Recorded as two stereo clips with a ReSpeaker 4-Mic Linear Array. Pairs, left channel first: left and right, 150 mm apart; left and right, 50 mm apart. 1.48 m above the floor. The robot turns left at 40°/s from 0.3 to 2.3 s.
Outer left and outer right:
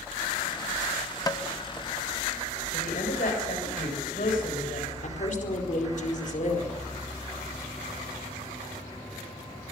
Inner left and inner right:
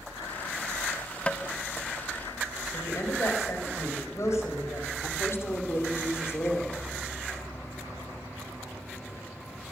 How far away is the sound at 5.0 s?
About 4.5 m.